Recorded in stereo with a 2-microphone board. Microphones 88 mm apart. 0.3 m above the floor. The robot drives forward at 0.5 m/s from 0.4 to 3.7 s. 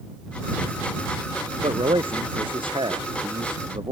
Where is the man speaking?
80° right; by 3.9 s 75° right (ahead or behind).